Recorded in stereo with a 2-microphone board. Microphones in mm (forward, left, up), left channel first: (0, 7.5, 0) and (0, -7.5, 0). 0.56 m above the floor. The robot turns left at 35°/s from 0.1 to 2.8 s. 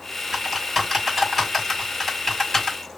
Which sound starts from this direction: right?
Typing on a keyboard, at 0.3 s.